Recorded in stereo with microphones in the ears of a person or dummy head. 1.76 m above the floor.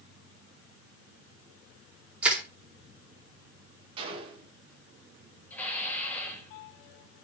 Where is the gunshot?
30° right (ahead or behind), 3 m.